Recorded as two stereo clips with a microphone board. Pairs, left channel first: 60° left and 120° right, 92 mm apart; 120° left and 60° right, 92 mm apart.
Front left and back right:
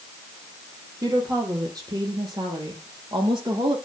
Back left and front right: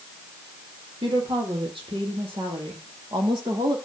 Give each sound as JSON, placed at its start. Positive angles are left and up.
{"t": 1.0, "sound": "a woman speaking", "azimuth_deg": -70, "distance_m": 6.0}